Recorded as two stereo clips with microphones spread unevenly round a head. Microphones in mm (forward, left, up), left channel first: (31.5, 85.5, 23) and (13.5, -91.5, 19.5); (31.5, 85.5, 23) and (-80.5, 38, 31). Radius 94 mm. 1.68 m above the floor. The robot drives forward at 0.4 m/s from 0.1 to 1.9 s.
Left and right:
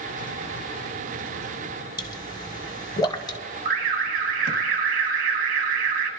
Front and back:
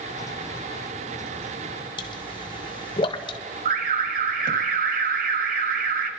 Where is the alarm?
145° right, 1.2 m.